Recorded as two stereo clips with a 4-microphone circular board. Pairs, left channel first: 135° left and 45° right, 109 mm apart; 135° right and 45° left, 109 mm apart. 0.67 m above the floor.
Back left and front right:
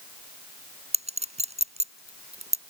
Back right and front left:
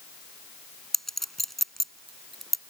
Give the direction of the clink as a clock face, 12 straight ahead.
2 o'clock.